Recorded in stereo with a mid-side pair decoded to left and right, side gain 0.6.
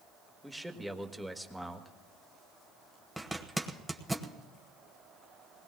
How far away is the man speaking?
About 1.6 m.